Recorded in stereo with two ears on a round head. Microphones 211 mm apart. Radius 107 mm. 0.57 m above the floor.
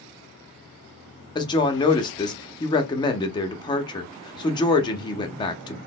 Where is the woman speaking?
20° left (ahead or behind), 0.6 m.